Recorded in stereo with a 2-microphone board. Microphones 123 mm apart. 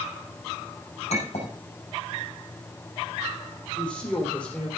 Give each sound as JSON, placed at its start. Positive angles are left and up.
{"t": 1.1, "sound": "a clink", "side_deg": 60, "distance_m": 6.0}
{"t": 3.8, "sound": "a woman speaking", "side_deg": 10, "distance_m": 4.5}